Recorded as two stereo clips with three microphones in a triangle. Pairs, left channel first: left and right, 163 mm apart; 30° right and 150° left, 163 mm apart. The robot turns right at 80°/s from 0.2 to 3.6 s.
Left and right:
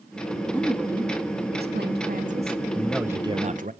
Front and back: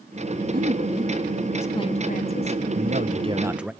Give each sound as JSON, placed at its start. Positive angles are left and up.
{"t": 0.5, "sound": "a woman speaking", "azimuth_deg": 165, "distance_m": 2.5}
{"t": 2.8, "sound": "a man speaking", "azimuth_deg": 165, "distance_m": 1.2}